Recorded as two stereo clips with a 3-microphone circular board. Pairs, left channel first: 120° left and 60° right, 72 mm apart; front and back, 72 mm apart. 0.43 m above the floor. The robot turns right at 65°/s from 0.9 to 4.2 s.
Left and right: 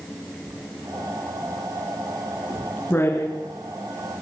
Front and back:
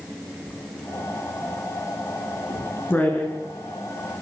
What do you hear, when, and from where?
0.5 s writing: 70° right, 6 m; by 3.4 s 90° left, 6 m